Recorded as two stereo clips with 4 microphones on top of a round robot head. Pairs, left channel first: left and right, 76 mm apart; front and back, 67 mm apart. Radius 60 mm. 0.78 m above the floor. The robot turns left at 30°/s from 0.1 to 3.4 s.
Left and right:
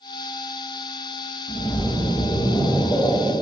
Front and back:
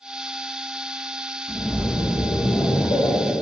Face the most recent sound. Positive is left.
turn(degrees=25)